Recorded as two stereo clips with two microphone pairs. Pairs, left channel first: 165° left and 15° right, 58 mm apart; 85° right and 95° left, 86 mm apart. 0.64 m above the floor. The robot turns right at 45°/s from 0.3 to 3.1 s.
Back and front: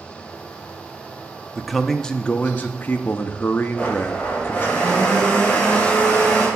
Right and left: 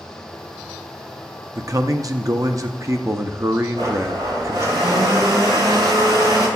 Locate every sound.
1.6 s a man speaking: 65° left, 0.6 m; by 4.8 s 135° left, 0.6 m
3.8 s a blender: 100° left, 5 m